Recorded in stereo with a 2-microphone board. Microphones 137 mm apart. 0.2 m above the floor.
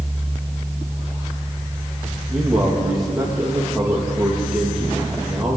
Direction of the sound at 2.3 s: 5° right (ahead or behind).